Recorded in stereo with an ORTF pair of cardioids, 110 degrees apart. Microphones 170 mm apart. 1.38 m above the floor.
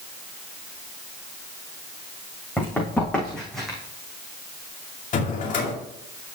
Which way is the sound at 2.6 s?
10° left.